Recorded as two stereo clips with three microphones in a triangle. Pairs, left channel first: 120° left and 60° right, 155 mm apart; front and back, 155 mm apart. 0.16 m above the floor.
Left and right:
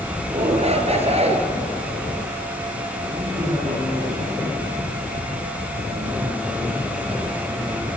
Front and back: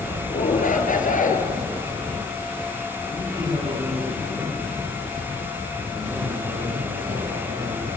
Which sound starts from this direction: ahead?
A shout, at 0.3 s.